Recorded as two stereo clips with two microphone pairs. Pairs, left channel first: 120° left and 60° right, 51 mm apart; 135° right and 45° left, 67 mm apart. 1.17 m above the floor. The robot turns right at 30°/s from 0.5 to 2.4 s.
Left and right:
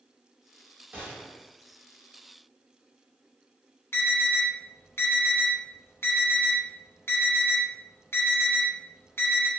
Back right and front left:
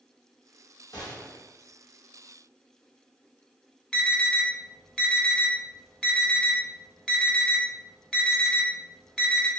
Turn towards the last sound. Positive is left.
turn(degrees=150)